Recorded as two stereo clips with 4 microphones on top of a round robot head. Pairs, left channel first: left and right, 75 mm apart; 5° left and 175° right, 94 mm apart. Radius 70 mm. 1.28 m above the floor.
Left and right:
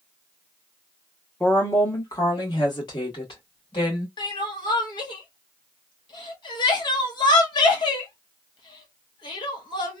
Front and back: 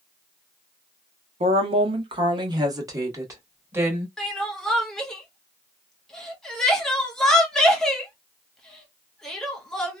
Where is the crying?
90° left, 0.8 m.